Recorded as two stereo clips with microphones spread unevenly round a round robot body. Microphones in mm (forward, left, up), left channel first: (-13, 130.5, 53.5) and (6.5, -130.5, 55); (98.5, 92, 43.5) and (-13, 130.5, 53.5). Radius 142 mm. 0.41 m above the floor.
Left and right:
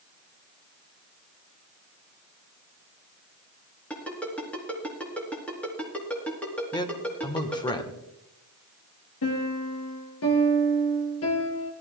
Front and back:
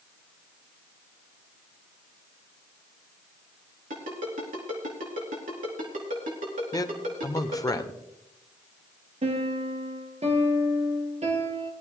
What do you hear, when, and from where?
3.9 s a ringtone: straight behind, 3.5 m
6.7 s a man speaking: 25° left, 1.2 m
9.2 s a piano: 130° left, 2.5 m